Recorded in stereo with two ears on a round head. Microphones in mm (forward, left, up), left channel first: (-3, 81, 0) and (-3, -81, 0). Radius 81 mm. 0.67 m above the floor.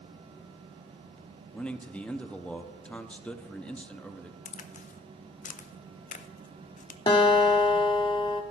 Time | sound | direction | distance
1.5 | a man speaking | 5° left (ahead or behind) | 0.6 m
4.5 | a crack | 45° left (ahead or behind) | 0.6 m
7.1 | a guitar | 25° left (ahead or behind) | 1.2 m